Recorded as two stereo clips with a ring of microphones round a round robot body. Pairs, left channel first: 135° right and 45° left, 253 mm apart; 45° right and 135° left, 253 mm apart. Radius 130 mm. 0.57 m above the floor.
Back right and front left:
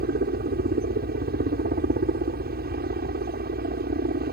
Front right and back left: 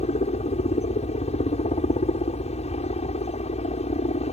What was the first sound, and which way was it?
A helicopter, 10° left.